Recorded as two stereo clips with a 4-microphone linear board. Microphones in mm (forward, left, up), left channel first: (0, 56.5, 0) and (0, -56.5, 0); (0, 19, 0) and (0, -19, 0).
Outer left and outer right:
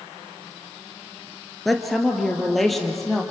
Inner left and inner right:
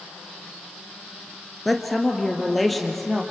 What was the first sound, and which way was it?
A woman speaking, centre (ahead or behind).